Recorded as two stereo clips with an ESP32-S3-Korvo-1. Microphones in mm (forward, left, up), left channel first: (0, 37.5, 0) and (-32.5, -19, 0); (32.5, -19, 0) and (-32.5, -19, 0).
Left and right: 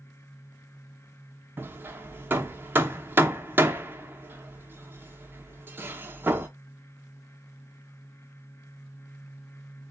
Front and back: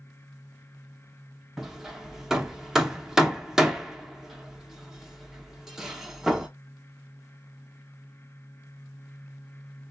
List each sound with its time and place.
1.6 s hammering: 105° right, 0.5 m